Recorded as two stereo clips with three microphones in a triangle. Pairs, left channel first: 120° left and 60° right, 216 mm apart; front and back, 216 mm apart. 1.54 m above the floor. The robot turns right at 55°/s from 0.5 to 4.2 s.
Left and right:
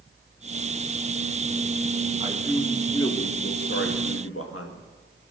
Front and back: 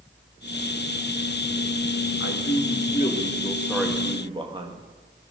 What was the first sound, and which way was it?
A man speaking, 5° left.